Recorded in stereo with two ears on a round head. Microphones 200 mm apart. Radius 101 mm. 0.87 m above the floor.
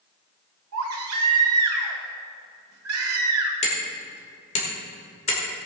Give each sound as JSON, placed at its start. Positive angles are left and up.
{"t": 0.7, "sound": "a baby crying", "side_deg": -80, "distance_m": 1.9}
{"t": 3.6, "sound": "hammering", "side_deg": 30, "distance_m": 2.5}